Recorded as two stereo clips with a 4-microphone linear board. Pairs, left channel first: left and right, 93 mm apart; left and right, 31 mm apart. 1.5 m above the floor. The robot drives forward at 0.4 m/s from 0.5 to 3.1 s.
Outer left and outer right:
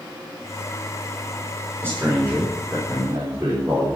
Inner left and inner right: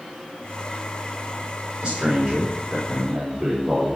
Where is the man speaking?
25° right (ahead or behind), 4.5 m; by 4.0 s 30° right (ahead or behind), 4 m.